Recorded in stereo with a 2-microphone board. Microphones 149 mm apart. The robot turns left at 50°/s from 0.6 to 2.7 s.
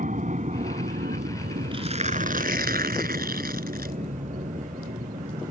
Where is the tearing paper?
35° right; by 4.0 s 85° right.